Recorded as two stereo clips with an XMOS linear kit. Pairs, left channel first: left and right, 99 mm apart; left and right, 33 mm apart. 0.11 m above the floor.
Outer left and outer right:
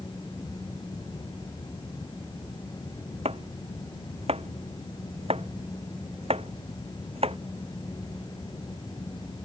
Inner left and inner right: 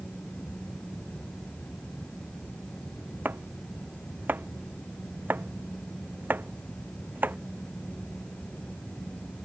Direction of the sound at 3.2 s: 85° right.